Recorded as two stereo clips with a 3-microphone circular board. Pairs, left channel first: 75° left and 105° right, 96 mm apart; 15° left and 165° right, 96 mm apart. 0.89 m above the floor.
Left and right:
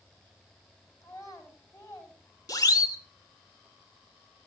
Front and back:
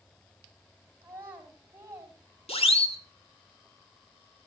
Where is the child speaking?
130° left, 5.5 m.